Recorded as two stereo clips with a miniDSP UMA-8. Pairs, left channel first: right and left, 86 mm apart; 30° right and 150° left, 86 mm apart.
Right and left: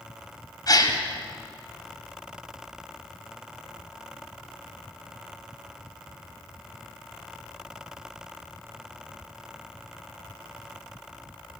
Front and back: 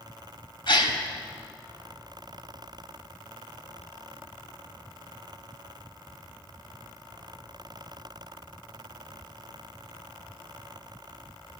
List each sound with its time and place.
0.7 s a gasp: 50° right, 1.3 m